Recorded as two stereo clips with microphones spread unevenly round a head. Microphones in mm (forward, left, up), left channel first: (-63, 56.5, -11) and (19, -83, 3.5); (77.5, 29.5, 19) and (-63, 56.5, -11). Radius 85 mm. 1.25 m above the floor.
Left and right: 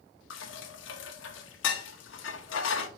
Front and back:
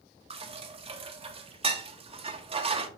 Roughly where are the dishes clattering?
Behind left.